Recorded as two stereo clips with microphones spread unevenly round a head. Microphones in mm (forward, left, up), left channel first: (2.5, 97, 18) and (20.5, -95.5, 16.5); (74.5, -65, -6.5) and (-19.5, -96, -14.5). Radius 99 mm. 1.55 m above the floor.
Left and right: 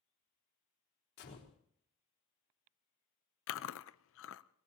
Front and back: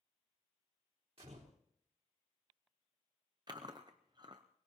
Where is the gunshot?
135° left, 3.5 m.